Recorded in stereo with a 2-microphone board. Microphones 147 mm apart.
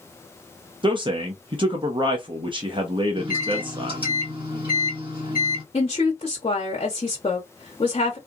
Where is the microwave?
35° right (ahead or behind), 1.5 m.